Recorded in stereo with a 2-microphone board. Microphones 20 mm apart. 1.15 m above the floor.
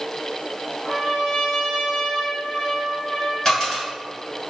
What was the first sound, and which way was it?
A trumpet, 30° left (ahead or behind).